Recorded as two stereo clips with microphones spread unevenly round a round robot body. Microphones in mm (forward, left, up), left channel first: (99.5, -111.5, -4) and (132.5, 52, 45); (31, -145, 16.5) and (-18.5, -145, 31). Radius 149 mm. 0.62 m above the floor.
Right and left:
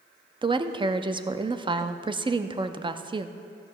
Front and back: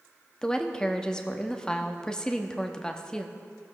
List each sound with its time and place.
0.4 s a woman speaking: 10° left, 0.6 m